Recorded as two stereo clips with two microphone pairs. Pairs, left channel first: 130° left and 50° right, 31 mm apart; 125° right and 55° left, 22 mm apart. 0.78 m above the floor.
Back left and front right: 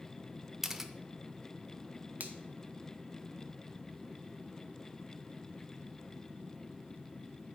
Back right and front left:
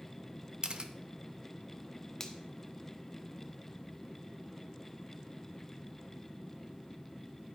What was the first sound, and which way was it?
A camera shutter, 25° left.